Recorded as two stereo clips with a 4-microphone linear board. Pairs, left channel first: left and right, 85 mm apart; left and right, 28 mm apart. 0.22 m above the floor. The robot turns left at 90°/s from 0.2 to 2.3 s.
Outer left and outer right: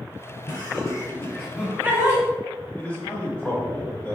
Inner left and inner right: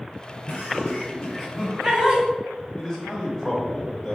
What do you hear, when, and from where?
0.5 s laughter: 55° left (ahead or behind), 1.8 m; by 2.2 s 45° right (ahead or behind), 1.8 m
2.8 s a man speaking: 15° left (ahead or behind), 1.0 m